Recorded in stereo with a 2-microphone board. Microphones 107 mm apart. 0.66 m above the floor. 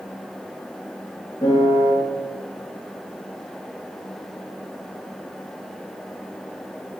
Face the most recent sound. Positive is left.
turn(degrees=30)  # may be behind; listen again after turning